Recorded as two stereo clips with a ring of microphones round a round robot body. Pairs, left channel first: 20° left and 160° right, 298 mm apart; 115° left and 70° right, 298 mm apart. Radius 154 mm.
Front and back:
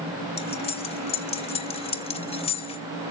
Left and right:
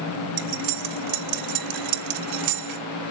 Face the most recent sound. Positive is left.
turn(degrees=-50)